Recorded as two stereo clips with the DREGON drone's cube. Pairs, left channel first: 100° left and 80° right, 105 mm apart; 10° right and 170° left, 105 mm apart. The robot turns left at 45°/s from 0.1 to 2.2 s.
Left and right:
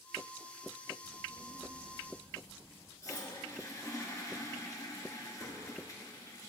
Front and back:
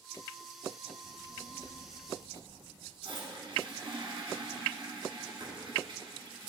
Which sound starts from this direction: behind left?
A toilet flushing, at 3.0 s.